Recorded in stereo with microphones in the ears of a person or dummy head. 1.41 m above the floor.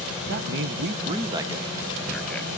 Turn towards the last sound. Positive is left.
turn(degrees=5)  # may be behind; listen again after turning